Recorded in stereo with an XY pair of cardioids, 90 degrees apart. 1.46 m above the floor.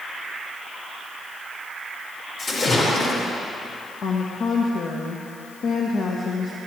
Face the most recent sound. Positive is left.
turn(degrees=65)